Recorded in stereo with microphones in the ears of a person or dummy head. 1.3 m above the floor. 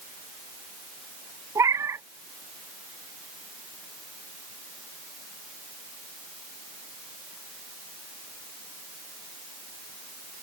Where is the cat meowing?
15° right (ahead or behind).